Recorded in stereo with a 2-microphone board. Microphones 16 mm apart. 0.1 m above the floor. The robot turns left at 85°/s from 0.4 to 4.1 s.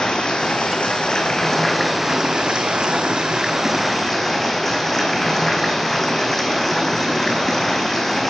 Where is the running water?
115° left, 1.9 m; by 8.3 s 160° left, 1.9 m.